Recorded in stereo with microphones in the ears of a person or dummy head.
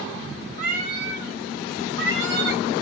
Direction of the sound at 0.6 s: 55° right (ahead or behind).